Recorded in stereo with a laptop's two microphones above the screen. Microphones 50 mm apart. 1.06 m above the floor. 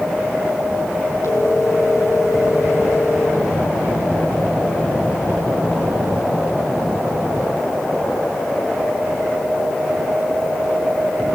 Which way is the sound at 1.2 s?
75° left (ahead or behind).